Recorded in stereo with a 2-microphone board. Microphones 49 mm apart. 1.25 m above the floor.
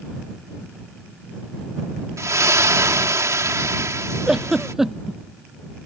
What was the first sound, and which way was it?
A splash, 75° right (ahead or behind).